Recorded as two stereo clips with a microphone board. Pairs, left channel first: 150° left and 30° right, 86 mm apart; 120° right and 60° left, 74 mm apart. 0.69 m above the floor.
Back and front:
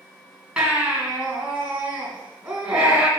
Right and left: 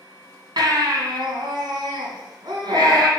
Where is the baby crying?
50° left, 2 m.